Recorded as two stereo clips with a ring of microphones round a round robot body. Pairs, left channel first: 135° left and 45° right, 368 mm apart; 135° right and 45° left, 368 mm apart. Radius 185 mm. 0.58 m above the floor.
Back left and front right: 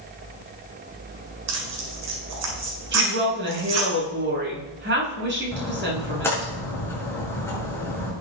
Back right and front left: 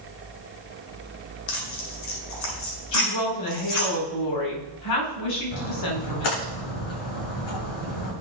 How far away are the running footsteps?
No running footsteps in this recording.